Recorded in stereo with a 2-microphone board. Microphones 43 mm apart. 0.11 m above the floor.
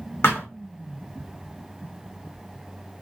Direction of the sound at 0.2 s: 55° left (ahead or behind).